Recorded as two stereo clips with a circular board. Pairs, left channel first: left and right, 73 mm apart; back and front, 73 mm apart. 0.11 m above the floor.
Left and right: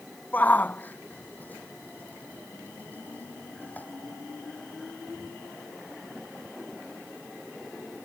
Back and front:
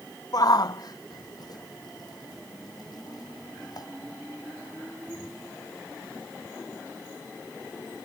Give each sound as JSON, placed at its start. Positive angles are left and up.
{"t": 0.3, "sound": "a shout", "azimuth_deg": 155}